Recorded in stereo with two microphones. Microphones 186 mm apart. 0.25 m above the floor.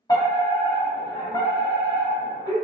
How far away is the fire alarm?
About 1.9 m.